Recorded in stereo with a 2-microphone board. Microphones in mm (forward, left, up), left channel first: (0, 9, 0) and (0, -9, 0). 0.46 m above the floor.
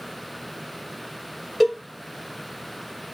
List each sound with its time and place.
1.6 s a cowbell: 5° right (ahead or behind), 2.5 m